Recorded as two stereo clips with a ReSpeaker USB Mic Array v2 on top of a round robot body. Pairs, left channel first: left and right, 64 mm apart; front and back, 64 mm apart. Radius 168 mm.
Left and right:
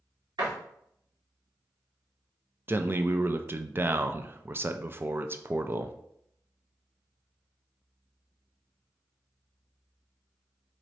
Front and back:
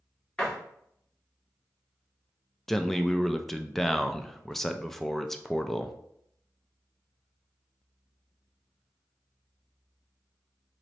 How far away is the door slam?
About 1.7 m.